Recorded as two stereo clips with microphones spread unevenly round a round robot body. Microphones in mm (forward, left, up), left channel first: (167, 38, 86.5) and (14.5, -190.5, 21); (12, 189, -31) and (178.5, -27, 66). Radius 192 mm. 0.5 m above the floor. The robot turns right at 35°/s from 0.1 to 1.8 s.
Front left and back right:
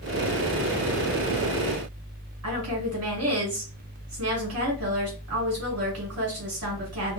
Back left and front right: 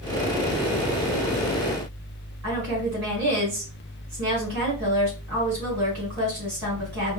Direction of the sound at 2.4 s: 115° right.